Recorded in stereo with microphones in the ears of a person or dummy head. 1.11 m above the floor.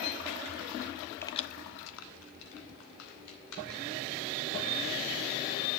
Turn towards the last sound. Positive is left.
turn(degrees=70)  # may be behind; listen again after turning